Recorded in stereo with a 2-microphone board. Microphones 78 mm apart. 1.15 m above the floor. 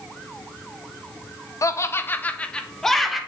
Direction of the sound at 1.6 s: 45° left (ahead or behind).